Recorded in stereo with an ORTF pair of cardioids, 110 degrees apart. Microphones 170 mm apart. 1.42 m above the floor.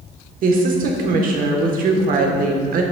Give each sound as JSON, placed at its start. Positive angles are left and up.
{"t": 0.4, "sound": "a woman speaking", "azimuth_deg": -55, "distance_m": 1.1}